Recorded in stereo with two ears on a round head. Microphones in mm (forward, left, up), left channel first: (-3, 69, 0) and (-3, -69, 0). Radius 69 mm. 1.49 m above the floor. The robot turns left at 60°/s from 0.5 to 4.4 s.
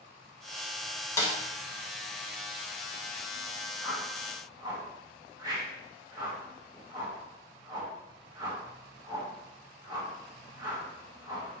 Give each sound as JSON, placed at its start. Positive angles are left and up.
{"t": 1.2, "sound": "a snare drum", "side_deg": 20, "distance_m": 1.4}
{"t": 3.8, "sound": "a whoosh", "side_deg": 10, "distance_m": 1.9}